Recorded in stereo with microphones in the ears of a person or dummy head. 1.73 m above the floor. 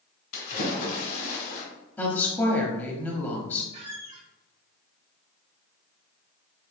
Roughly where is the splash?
Left.